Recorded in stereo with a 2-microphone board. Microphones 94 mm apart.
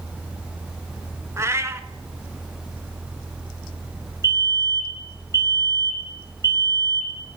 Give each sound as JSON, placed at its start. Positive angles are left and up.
{"t": 1.4, "sound": "a cat meowing", "side_deg": -30, "distance_m": 0.5}
{"t": 4.2, "sound": "a fire alarm", "side_deg": -35, "distance_m": 2.5}